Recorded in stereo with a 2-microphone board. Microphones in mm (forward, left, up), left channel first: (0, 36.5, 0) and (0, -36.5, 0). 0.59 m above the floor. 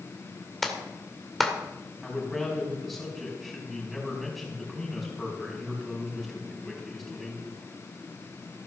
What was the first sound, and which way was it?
A clap, centre (ahead or behind).